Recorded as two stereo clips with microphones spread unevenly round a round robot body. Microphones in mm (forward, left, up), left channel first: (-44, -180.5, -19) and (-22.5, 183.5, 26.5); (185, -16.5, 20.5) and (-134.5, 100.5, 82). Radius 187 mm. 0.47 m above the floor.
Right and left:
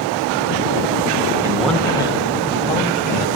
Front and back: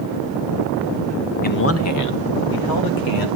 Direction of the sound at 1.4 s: 5° left.